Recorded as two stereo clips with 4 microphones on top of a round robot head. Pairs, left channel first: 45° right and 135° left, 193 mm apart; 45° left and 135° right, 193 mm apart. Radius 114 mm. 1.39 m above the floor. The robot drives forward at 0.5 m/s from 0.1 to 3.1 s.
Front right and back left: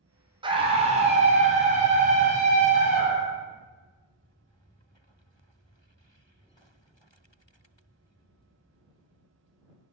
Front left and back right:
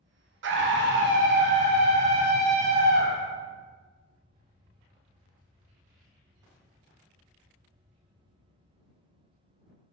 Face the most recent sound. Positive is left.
turn(degrees=-175)